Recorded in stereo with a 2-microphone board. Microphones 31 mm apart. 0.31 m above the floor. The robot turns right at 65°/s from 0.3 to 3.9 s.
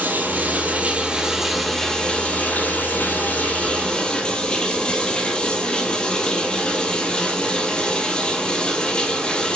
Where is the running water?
80° right, 1.5 m; by 9.6 s 155° left, 1.5 m.